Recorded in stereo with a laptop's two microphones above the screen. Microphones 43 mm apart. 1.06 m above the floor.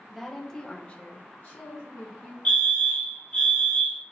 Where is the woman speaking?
5° left (ahead or behind), 0.9 m; by 2.4 s 35° left (ahead or behind), 1.2 m.